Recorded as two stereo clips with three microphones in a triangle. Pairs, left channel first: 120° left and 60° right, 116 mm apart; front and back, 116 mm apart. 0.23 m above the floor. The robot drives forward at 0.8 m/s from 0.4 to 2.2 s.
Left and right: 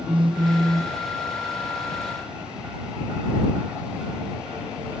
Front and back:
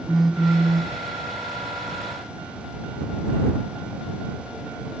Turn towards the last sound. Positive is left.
turn(degrees=-160)